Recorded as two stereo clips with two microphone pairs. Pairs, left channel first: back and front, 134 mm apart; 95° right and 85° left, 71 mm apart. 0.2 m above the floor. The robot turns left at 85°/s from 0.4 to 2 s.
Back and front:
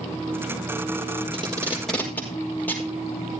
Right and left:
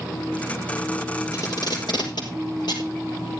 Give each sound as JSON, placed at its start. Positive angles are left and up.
{"t": 1.3, "sound": "tape being pulled", "azimuth_deg": -50, "distance_m": 5.0}